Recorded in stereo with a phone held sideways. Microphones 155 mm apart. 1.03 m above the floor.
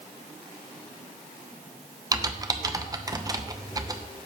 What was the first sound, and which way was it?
Typing on a keyboard, 25° right (ahead or behind).